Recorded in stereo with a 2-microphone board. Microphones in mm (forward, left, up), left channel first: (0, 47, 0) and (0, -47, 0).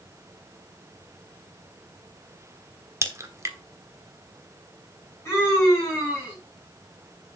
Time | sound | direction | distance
3.0 | a crack | 30° right (ahead or behind) | 1.3 m
5.2 | a scream | 30° left (ahead or behind) | 4.5 m